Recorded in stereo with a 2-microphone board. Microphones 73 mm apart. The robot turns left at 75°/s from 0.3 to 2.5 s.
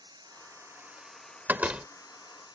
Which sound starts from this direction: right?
A door slam, at 1.5 s.